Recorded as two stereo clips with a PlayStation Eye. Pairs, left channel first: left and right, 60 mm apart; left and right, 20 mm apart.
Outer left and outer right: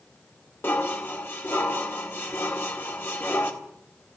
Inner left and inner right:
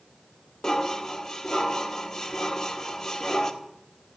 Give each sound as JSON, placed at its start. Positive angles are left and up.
{"t": 0.6, "sound": "dishes clattering", "side_deg": 40, "distance_m": 1.9}